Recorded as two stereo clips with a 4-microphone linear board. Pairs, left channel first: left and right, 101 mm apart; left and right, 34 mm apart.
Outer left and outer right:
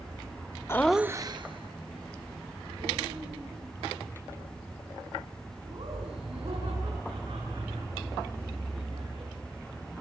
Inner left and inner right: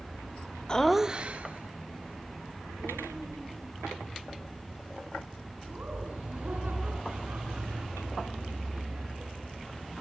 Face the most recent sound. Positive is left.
turn(degrees=-65)  # may be behind; listen again after turning